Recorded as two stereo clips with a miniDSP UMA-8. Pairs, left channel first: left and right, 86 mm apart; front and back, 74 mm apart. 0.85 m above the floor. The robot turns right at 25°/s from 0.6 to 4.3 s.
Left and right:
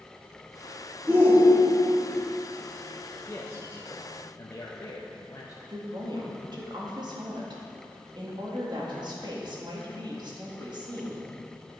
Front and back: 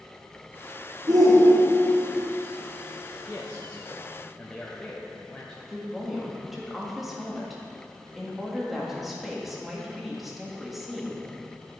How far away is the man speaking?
About 0.8 m.